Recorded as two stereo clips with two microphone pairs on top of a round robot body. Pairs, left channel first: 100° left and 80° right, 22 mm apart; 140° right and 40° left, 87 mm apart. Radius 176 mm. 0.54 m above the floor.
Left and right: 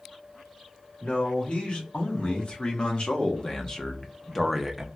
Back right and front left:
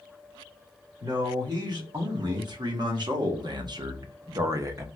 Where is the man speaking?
80° left, 2.5 m; by 4.9 s straight ahead, 0.8 m.